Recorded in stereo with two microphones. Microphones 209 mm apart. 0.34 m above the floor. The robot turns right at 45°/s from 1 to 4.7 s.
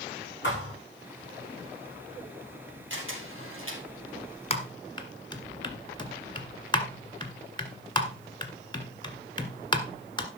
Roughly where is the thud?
Left.